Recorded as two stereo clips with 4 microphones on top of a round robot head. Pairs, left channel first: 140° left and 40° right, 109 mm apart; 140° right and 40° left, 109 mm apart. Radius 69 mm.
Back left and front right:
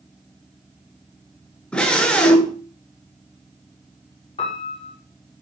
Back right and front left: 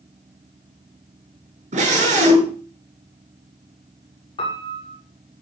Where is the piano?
Straight behind, 6.5 m.